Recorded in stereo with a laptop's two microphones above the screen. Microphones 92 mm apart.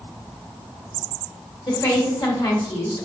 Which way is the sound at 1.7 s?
45° left (ahead or behind).